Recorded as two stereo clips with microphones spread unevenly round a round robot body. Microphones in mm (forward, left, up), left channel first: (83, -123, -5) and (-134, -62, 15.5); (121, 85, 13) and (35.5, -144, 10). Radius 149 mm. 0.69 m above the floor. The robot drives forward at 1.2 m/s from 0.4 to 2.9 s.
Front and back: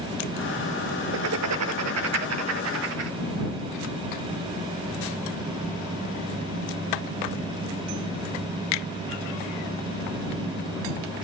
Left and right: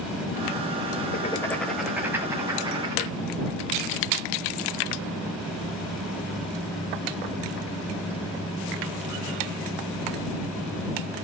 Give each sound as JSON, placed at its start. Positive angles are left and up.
{"t": 1.1, "sound": "writing", "azimuth_deg": 130, "distance_m": 0.5}